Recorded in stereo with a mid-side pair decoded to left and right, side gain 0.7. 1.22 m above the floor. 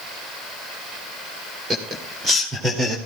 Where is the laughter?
30° right, 3.5 m; by 3.0 s 20° right, 2.5 m.